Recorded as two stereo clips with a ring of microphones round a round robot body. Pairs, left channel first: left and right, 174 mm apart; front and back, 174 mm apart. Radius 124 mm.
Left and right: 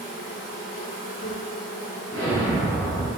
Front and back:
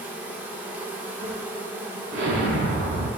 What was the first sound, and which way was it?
An insect, 100° left.